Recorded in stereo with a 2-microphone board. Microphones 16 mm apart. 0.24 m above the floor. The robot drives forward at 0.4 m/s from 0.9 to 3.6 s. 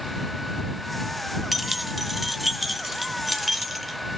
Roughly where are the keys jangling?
Centre.